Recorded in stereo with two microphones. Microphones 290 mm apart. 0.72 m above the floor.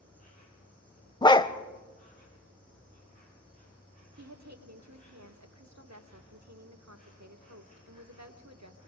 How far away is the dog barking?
About 0.7 m.